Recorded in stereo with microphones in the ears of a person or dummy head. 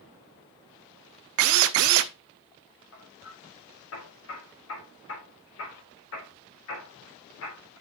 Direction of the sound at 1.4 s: 70° right (ahead or behind).